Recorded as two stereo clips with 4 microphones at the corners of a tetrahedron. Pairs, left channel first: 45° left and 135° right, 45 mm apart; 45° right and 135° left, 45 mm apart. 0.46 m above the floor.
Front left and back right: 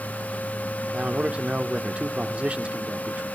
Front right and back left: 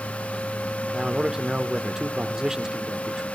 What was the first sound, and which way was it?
A man speaking, 165° right.